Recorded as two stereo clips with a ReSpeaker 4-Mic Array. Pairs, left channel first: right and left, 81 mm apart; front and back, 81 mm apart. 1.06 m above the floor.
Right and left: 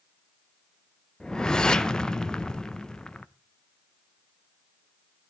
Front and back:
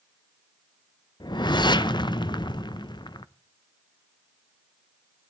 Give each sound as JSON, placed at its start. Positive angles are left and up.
{"t": 1.2, "sound": "a whoosh", "azimuth_deg": -10, "distance_m": 0.6}